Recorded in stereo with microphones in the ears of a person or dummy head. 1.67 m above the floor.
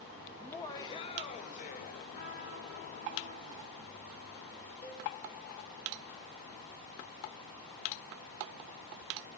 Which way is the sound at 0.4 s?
5° left (ahead or behind).